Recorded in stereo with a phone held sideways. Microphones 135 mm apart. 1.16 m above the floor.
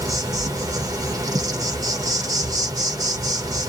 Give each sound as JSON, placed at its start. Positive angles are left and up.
{"t": 0.0, "sound": "an insect", "side_deg": -30, "distance_m": 0.9}